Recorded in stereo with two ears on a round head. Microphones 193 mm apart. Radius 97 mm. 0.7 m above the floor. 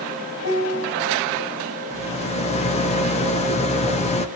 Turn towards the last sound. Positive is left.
turn(degrees=30)  # may be behind; listen again after turning